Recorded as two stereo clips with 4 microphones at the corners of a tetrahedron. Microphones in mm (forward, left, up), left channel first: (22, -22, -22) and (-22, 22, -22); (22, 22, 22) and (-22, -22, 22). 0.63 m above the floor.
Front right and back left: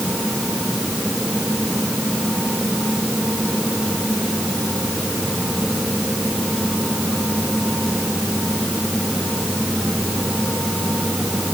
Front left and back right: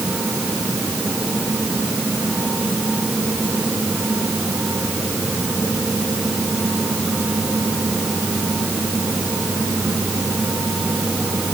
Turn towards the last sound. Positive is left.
No sound to turn to.